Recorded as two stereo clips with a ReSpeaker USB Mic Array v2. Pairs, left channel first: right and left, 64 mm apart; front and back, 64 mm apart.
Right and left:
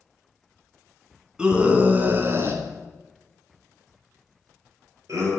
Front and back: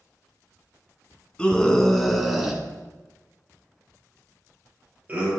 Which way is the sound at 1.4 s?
45° left.